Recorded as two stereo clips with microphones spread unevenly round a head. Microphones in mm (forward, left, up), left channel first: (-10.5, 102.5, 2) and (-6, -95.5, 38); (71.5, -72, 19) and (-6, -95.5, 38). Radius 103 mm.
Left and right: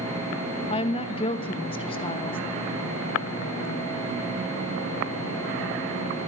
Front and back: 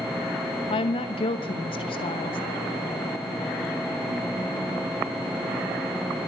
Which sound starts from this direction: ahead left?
A woman speaking, at 0.7 s.